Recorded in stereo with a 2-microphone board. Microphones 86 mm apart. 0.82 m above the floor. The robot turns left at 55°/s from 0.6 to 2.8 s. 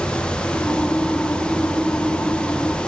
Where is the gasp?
No gasp in this recording.